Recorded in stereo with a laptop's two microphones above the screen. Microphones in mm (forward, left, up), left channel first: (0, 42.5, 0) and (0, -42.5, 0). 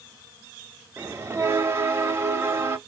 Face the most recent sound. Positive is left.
turn(degrees=-30)  # may be behind; listen again after turning